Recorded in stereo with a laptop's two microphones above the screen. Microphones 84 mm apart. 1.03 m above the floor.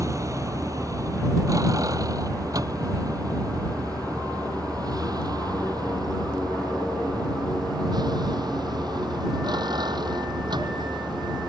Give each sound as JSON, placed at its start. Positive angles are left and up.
{"t": 0.0, "sound": "a vehicle", "side_deg": -40}